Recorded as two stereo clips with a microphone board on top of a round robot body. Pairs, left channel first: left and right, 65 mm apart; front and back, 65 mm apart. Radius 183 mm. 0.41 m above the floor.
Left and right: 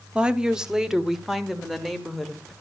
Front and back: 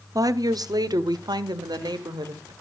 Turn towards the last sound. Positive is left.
turn(degrees=180)